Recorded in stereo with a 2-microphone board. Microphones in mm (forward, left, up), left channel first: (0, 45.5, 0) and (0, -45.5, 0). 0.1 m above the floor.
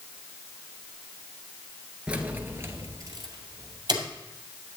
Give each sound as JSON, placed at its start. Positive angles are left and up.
{"t": 2.1, "sound": "keys jangling", "side_deg": -10, "distance_m": 1.2}